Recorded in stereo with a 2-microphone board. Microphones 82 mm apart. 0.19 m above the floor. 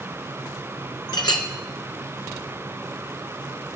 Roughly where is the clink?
Left.